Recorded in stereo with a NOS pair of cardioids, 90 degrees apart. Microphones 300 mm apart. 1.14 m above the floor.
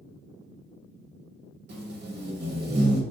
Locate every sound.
1.7 s tape being pulled: 35° right, 1.0 m